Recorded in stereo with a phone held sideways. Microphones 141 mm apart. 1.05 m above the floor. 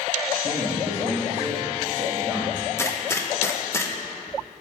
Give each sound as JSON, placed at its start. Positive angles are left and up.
{"t": 0.4, "sound": "a man speaking", "side_deg": -15, "distance_m": 1.7}
{"t": 2.8, "sound": "a gunshot", "side_deg": 20, "distance_m": 0.6}